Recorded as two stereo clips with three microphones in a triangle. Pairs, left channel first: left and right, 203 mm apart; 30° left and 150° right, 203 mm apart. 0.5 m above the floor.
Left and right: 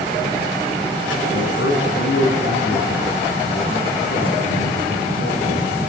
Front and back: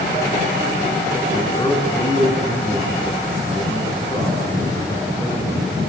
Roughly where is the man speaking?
Left.